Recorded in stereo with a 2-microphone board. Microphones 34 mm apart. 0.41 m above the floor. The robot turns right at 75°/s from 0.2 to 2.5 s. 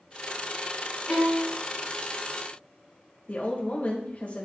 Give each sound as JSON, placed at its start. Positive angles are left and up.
{"t": 1.1, "sound": "a violin", "azimuth_deg": 150, "distance_m": 3.5}
{"t": 3.3, "sound": "a woman speaking", "side_deg": 45, "distance_m": 1.4}